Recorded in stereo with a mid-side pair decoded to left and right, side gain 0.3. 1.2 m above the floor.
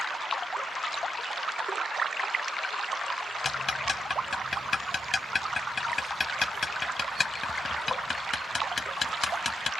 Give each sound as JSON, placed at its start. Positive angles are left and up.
{"t": 3.5, "sound": "ticking", "azimuth_deg": 45}